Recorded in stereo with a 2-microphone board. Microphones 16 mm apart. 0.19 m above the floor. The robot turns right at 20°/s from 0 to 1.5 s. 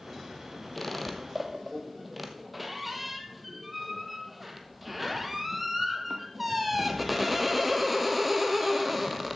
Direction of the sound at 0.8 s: 5° left (ahead or behind).